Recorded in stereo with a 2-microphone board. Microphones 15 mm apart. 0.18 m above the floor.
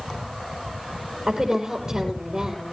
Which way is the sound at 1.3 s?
35° right (ahead or behind).